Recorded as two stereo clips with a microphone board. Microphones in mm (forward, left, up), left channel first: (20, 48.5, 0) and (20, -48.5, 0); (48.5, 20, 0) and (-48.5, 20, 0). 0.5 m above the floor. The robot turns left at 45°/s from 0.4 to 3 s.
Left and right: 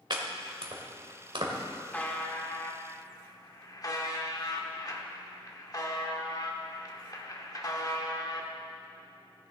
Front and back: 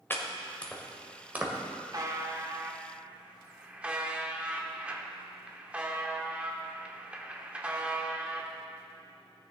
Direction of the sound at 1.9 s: 155° left.